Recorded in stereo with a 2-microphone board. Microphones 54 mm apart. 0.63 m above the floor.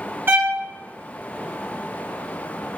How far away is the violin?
About 0.6 m.